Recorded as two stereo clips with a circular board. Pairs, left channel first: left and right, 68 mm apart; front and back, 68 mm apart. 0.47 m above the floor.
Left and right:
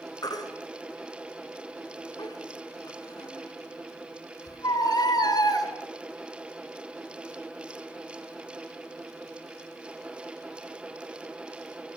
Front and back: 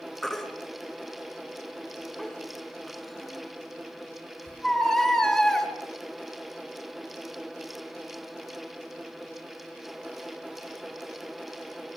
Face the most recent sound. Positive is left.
turn(degrees=85)